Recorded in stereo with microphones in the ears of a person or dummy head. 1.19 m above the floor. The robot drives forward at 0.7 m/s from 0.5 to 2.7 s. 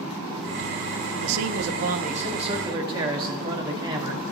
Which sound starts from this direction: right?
A man speaking, at 1.2 s.